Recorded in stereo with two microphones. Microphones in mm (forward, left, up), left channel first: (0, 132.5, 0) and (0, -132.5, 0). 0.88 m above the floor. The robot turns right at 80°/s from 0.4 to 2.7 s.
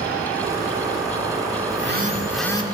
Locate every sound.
1.7 s a phone buzzing: 55° right, 1.8 m; by 2.6 s 20° left, 1.8 m